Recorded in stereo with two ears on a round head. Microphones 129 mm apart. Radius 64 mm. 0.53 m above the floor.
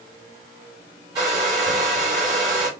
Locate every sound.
1.1 s a hair dryer: 30° right (ahead or behind), 2.5 m